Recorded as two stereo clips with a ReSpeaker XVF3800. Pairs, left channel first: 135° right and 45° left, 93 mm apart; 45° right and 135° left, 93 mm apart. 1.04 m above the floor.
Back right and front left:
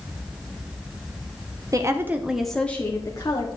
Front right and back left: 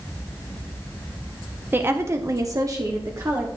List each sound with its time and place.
1.7 s a woman speaking: 80° left, 1.0 m; by 3.5 s 175° right, 1.3 m